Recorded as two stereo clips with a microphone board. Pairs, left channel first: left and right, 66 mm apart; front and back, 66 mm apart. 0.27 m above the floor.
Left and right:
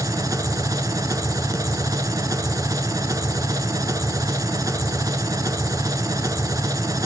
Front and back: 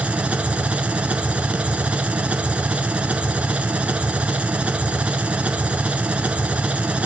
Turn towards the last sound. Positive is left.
turn(degrees=-110)